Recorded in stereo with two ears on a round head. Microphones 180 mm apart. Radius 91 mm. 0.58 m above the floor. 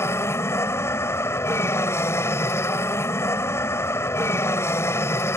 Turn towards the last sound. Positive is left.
turn(degrees=15)  # may be behind; listen again after turning